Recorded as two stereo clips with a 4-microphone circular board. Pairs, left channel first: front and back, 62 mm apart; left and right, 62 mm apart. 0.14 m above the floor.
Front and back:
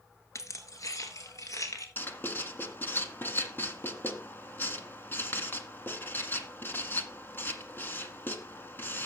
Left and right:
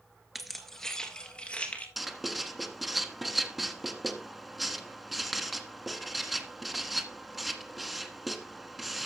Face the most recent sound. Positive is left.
turn(degrees=-5)